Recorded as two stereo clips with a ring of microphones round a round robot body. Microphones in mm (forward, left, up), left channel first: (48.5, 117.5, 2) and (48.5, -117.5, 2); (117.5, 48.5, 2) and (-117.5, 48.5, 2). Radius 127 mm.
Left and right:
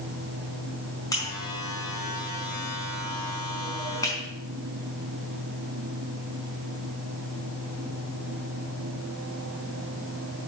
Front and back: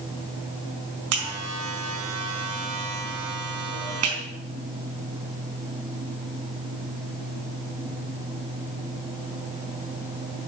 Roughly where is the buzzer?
Behind.